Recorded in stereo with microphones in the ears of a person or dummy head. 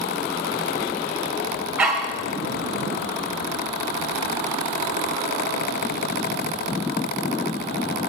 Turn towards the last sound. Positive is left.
turn(degrees=-10)  # may be behind; listen again after turning